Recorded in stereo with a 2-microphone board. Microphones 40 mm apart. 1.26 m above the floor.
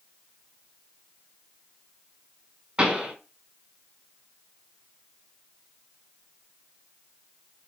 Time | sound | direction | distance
2.8 | a pop | 25° right (ahead or behind) | 1.6 m